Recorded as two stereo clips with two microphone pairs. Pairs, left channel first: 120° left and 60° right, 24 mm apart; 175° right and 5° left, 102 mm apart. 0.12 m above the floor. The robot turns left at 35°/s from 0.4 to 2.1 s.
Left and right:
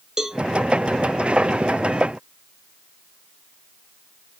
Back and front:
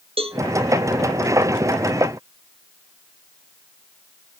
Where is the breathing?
I don't hear breathing.